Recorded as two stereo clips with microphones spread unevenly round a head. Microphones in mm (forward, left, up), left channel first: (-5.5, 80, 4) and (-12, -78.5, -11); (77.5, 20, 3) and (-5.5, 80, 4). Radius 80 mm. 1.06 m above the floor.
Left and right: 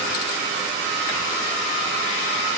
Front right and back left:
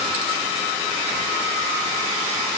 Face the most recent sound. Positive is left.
No sound to turn to.